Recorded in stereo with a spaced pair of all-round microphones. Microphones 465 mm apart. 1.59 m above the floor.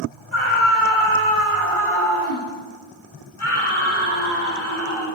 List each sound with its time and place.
0.3 s a scream: 75° left (ahead or behind), 9.5 m